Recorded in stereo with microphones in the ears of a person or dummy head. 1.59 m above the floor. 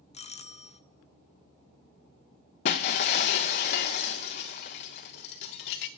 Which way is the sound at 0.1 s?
35° left (ahead or behind).